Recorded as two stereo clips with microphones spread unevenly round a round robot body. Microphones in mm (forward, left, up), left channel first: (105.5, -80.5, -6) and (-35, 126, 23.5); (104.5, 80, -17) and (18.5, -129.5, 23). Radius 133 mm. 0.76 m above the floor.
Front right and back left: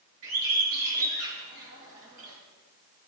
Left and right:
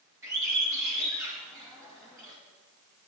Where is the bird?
170° left, 1.9 m.